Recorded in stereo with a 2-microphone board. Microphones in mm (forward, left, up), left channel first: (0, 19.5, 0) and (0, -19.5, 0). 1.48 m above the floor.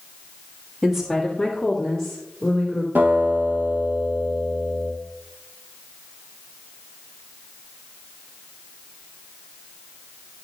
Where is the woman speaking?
10° right (ahead or behind), 1.5 m; by 2.9 s 15° left (ahead or behind), 3 m.